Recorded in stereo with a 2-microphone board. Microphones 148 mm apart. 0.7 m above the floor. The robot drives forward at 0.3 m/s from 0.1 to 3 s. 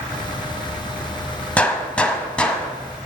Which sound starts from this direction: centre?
A gunshot, at 1.6 s.